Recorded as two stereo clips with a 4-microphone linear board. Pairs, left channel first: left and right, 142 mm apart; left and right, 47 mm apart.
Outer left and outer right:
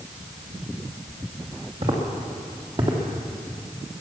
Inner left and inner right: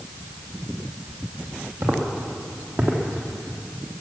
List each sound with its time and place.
1.8 s footsteps: 50° right (ahead or behind), 3 m; by 3.0 s 40° right (ahead or behind), 2.5 m